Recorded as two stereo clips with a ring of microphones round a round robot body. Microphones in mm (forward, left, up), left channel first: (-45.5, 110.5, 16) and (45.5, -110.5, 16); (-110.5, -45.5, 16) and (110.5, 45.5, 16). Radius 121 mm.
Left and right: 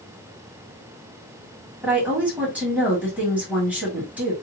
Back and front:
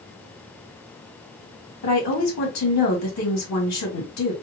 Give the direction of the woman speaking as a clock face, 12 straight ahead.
5 o'clock.